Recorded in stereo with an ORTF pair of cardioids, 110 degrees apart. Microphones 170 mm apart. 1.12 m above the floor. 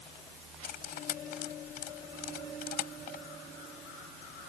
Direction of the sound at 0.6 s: 65° left.